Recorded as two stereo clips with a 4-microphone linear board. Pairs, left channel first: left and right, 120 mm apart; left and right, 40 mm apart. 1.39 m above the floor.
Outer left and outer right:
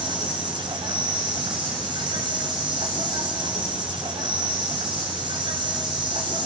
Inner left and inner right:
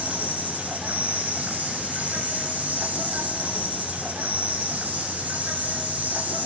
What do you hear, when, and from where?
0.0 s an insect: 45° right (ahead or behind), 6 m